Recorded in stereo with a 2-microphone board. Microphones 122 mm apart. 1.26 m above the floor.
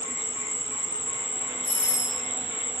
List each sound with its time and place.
0.0 s an insect: 10° right (ahead or behind), 0.8 m
1.6 s a doorbell: 25° left (ahead or behind), 3.5 m